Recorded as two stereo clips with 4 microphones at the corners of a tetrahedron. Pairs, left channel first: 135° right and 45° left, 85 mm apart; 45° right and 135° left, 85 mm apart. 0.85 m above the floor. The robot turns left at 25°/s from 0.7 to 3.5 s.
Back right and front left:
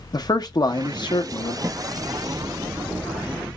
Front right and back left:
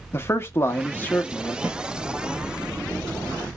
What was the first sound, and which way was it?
A man speaking, 100° right.